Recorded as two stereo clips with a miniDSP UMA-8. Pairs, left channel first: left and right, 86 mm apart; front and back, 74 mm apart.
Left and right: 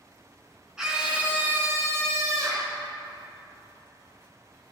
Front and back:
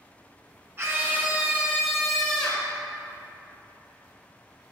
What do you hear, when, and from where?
0.8 s a scream: 170° right, 1.4 m; by 2.7 s 70° right, 1.6 m